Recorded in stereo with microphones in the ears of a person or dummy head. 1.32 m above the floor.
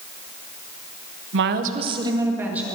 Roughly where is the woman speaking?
Right.